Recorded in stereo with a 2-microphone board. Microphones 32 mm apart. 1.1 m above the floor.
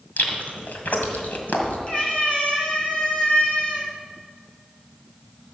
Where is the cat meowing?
35° left (ahead or behind), 3.5 m.